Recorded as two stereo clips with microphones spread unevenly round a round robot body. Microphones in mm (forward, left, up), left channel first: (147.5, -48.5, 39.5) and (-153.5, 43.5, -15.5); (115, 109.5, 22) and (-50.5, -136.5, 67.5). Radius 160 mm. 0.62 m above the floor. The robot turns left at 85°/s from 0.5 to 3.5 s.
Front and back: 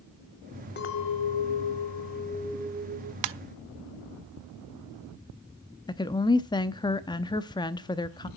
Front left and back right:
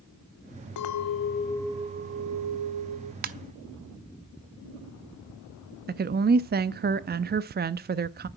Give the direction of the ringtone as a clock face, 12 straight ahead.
6 o'clock.